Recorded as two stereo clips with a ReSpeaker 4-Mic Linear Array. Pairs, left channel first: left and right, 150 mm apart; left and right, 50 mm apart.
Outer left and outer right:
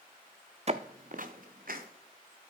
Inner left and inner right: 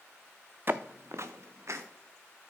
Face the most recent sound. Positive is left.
turn(degrees=-70)  # may be behind; listen again after turning